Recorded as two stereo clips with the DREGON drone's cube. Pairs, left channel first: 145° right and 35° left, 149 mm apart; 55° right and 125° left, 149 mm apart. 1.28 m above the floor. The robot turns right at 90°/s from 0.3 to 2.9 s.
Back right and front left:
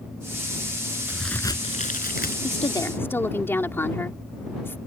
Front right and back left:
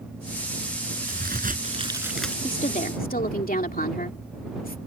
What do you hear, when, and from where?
1.1 s a crack: 115° left; by 2.3 s 135° right
2.4 s a woman speaking: 110° right; by 4.8 s 70° right